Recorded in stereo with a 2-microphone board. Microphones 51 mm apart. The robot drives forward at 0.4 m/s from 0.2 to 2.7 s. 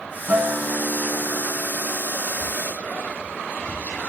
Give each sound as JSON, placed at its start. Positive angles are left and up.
{"t": 0.3, "sound": "a guitar", "side_deg": -30, "distance_m": 3.0}
{"t": 2.3, "sound": "whispering", "side_deg": 40, "distance_m": 4.5}